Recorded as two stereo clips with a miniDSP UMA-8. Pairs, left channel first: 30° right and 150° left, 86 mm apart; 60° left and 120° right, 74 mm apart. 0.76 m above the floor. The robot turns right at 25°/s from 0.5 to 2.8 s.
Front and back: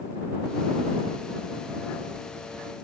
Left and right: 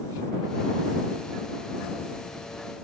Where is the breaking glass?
No breaking glass in this recording.